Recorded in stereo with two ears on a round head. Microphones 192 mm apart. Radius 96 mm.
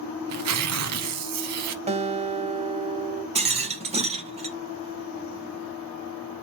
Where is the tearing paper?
80° right, 0.8 m.